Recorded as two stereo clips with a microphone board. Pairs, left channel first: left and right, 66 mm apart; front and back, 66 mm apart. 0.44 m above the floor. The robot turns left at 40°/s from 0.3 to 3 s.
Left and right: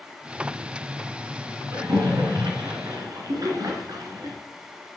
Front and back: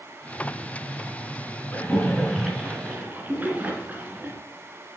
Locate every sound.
1.7 s a splash: 65° right, 3 m; by 4.4 s 115° right, 3 m